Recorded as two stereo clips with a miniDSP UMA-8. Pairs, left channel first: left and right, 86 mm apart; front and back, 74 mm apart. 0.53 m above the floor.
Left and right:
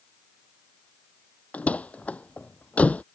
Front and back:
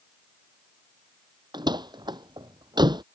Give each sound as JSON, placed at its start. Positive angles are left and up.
{"t": 1.5, "sound": "a door slam", "azimuth_deg": 165}